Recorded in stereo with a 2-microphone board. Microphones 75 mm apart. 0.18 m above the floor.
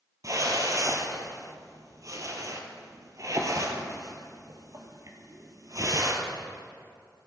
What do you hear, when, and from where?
0.2 s a whoosh: 45° right (ahead or behind), 1.4 m